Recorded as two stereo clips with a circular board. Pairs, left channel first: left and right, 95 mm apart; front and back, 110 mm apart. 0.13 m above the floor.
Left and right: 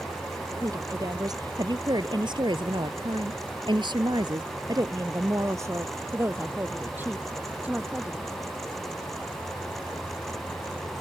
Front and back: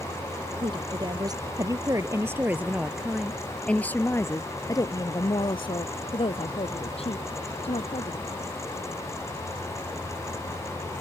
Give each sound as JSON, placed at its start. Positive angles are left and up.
{"t": 0.6, "sound": "a woman speaking", "azimuth_deg": -140}